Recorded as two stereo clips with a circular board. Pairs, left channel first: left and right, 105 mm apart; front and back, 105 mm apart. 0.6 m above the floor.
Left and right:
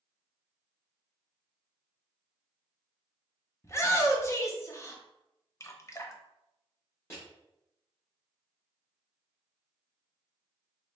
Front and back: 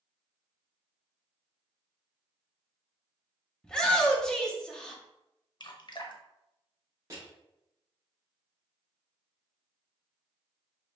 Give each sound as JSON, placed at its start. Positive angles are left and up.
{"t": 3.6, "sound": "a shout", "azimuth_deg": 75, "distance_m": 0.7}
{"t": 5.6, "sound": "dripping", "azimuth_deg": 35, "distance_m": 0.5}
{"t": 7.1, "sound": "crushing", "azimuth_deg": 135, "distance_m": 1.6}